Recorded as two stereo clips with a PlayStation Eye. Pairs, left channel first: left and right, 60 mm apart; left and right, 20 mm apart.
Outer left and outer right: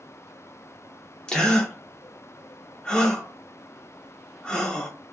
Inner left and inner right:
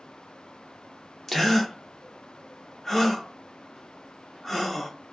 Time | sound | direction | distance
1.3 | a gasp | 15° left (ahead or behind) | 0.6 m